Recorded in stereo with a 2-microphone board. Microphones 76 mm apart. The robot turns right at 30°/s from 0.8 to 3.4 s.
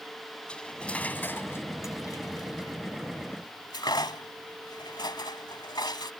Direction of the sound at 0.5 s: 15° left (ahead or behind).